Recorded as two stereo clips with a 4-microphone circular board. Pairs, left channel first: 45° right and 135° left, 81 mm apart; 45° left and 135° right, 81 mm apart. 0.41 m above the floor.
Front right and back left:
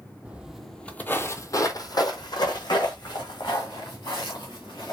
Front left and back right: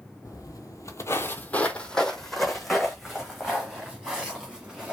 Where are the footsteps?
65° left, 0.6 m; by 4.9 s 60° right, 2 m.